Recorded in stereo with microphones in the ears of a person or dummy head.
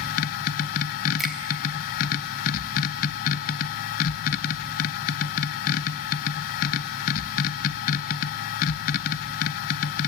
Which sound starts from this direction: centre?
A finger snap, at 1.2 s.